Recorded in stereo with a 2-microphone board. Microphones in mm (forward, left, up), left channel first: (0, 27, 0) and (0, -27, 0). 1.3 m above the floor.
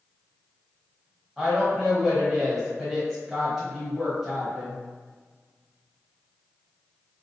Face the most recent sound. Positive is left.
turn(degrees=-5)  # may be behind; listen again after turning